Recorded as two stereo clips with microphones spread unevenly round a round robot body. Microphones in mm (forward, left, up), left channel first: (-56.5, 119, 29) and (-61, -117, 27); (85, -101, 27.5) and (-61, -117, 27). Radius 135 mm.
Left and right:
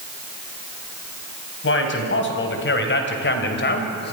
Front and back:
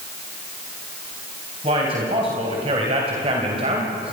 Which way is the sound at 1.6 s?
125° left.